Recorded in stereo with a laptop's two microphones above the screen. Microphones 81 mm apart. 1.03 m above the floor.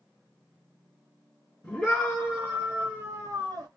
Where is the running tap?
I don't hear a running tap.